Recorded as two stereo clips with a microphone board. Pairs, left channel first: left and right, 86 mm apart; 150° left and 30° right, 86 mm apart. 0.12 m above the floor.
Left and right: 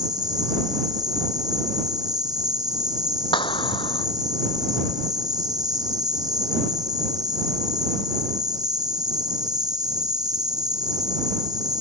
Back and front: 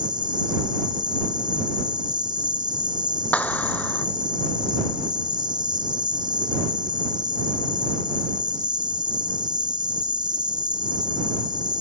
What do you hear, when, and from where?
0.0 s an insect: 55° right
3.3 s a clap: 80° left